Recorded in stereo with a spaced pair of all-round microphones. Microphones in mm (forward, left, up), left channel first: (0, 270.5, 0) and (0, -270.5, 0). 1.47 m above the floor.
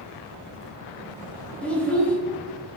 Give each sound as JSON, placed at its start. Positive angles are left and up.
{"t": 1.6, "sound": "a child speaking", "side_deg": 0, "distance_m": 0.9}